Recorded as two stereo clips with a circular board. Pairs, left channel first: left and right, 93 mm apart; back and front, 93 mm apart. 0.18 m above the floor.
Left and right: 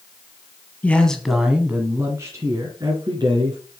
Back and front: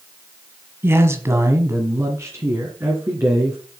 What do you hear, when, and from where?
0.8 s a man speaking: 30° left, 1.4 m; by 3.6 s 65° right, 2.5 m